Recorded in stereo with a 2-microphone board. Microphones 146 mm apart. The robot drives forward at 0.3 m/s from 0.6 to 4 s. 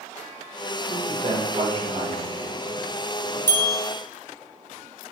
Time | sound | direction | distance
0.9 | a man speaking | 45° right (ahead or behind) | 2 m
3.5 | a bell | 15° left (ahead or behind) | 1.4 m